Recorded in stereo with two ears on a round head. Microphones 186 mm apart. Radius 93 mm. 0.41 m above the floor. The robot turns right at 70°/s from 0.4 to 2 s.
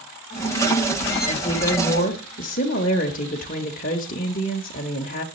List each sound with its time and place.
1.3 s a woman speaking: 30° left, 0.9 m; by 5.2 s 80° left, 0.9 m